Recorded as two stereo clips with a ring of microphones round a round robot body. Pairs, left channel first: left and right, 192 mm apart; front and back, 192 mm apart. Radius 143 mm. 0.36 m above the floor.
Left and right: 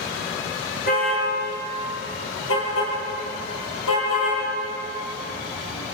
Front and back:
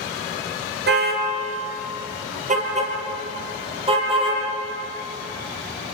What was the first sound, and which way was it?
A car horn, 150° left.